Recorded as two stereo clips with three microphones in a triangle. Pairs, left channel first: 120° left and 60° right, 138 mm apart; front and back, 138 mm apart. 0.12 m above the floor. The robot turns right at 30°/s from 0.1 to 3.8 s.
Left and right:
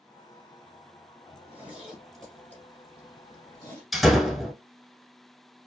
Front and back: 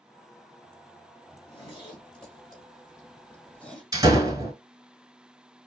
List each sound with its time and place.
1.3 s a zipper: 10° left, 1.8 m; by 3.8 s 80° left, 1.8 m
3.9 s a door slam: 150° right, 1.0 m